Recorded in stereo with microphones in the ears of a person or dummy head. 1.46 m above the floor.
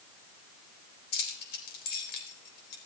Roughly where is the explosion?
I don't hear an explosion.